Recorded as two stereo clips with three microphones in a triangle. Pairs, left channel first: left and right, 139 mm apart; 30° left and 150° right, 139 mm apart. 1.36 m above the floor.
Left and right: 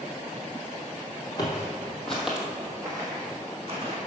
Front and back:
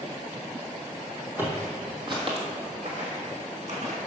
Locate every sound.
1.4 s footsteps: 140° left, 2 m; by 4.0 s 130° right, 3 m